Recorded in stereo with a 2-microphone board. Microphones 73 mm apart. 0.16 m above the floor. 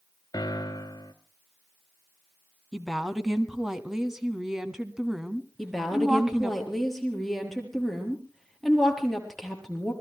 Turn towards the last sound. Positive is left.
turn(degrees=5)  # may be behind; listen again after turning